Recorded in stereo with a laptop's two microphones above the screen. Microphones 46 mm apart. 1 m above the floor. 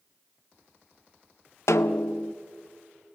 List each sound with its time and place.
1.7 s a snare drum: 85° left, 0.6 m